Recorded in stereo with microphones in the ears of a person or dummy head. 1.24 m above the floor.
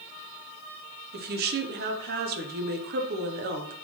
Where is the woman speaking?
45° right (ahead or behind), 0.6 m.